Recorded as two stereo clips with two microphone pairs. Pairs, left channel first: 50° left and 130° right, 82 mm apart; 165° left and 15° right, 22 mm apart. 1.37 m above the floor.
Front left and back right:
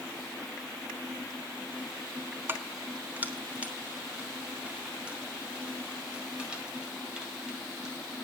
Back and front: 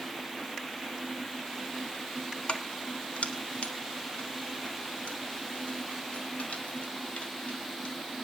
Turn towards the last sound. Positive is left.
turn(degrees=150)